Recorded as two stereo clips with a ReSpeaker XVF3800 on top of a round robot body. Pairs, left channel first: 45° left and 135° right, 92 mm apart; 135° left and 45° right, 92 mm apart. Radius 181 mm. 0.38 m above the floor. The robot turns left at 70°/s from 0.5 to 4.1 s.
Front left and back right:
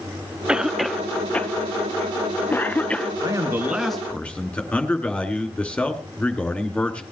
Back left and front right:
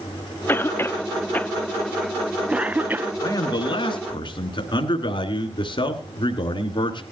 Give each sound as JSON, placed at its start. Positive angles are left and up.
{"t": 0.5, "sound": "a cough", "azimuth_deg": 155, "distance_m": 0.8}
{"t": 3.2, "sound": "a man speaking", "azimuth_deg": -175, "distance_m": 2.5}